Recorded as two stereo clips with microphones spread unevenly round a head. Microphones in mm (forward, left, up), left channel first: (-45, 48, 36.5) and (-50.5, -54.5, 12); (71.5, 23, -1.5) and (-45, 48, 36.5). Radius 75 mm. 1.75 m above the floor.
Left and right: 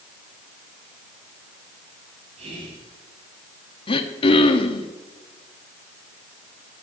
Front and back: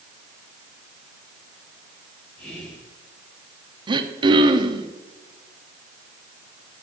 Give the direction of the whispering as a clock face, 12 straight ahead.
3 o'clock.